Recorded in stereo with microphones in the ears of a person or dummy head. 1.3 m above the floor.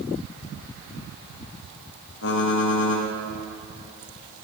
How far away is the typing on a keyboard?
About 1.1 m.